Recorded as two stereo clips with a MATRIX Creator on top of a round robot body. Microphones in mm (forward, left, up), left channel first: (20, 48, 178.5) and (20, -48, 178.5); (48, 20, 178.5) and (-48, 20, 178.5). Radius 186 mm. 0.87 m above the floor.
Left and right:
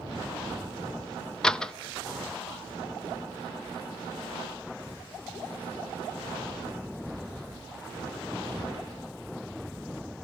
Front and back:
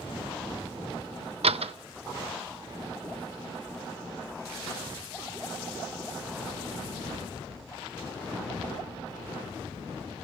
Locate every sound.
1.4 s a door slam: 175° left, 0.7 m